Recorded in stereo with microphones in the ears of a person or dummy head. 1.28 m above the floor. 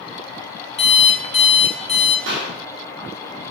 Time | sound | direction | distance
0.8 | an alarm clock | 25° left (ahead or behind) | 1.3 m
2.3 | a clap | 70° right (ahead or behind) | 2.5 m